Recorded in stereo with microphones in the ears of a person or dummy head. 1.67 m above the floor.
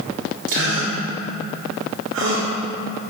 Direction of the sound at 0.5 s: 70° right (ahead or behind).